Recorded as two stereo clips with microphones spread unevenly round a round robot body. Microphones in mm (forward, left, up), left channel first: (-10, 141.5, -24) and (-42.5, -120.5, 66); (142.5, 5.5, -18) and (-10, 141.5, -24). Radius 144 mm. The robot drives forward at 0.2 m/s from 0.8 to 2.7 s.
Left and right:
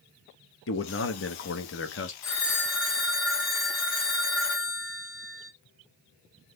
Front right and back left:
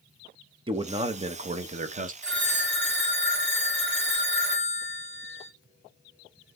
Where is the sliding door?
No sliding door in this recording.